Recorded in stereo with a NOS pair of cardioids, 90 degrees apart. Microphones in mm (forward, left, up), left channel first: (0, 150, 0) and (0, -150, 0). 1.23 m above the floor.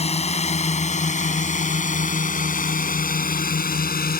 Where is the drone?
20° left; by 4.2 s 30° left.